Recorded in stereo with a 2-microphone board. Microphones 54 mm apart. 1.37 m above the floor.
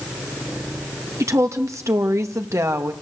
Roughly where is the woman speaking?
Right.